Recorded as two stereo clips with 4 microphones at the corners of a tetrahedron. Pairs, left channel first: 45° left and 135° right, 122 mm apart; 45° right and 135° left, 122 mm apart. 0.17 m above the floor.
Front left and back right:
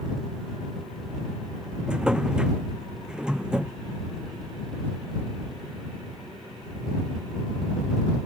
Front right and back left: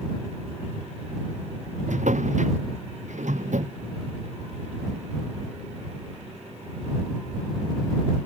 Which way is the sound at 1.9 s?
140° left.